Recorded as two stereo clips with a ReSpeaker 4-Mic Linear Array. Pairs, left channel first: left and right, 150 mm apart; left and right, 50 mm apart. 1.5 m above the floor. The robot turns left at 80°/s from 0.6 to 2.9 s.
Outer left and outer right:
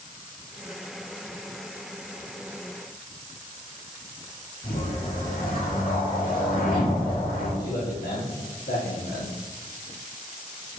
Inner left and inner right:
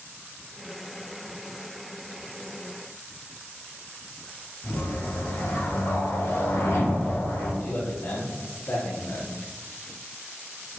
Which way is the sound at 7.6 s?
80° left.